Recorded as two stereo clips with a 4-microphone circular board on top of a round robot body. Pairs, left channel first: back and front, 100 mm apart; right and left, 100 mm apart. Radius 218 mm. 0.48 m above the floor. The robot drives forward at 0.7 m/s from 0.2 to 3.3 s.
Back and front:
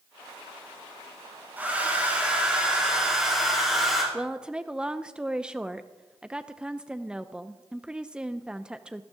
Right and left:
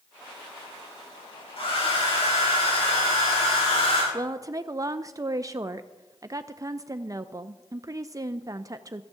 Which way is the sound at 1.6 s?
75° right.